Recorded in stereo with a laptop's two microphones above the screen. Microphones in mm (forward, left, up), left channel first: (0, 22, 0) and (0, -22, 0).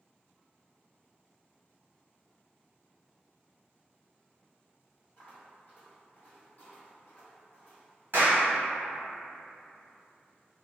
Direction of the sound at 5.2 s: 40° left (ahead or behind).